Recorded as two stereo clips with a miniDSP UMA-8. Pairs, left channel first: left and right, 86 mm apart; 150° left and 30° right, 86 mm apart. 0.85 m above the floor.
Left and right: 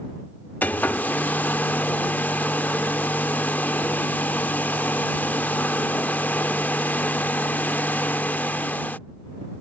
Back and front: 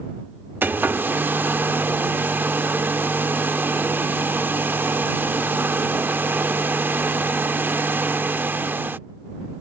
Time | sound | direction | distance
0.6 | a hair dryer | 30° left | ?